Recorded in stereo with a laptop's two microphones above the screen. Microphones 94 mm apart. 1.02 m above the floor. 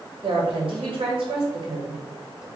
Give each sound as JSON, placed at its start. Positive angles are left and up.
{"t": 0.2, "sound": "a woman speaking", "side_deg": -70, "distance_m": 1.6}